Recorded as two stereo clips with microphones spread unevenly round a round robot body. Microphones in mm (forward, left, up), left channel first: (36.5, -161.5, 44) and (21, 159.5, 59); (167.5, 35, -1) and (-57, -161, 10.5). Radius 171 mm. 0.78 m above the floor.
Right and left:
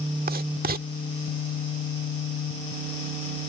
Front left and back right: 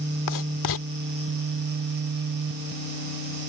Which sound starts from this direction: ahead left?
Writing, at 0.3 s.